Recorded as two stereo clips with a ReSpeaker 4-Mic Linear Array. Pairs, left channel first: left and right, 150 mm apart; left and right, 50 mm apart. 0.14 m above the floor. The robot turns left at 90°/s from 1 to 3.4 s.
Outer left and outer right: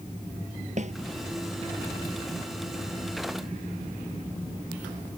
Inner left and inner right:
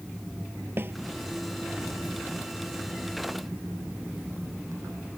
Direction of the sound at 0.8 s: 50° right (ahead or behind).